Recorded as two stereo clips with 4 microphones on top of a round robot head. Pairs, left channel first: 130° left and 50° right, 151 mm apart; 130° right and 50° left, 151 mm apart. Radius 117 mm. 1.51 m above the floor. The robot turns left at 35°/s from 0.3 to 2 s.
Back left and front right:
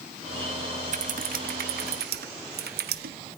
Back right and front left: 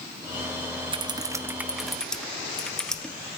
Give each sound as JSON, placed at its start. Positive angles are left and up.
{"t": 0.9, "sound": "typing on a keyboard", "azimuth_deg": -5, "distance_m": 1.2}